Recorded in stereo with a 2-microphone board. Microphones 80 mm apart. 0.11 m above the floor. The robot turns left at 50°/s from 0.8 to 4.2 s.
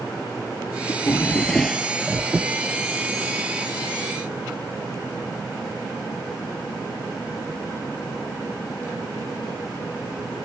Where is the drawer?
45° left; by 2.5 s 35° right.